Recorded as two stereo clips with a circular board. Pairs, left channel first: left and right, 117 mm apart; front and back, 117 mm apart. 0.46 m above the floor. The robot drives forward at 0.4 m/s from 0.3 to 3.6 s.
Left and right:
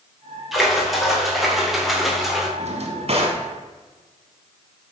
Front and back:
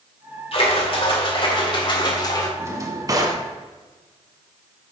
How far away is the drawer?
About 1.1 m.